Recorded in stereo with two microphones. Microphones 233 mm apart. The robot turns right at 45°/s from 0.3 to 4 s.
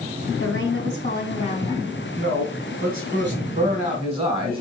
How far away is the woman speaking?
About 3 m.